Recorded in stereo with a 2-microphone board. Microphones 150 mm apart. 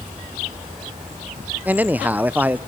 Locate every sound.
1.6 s a man speaking: 10° right (ahead or behind), 0.5 m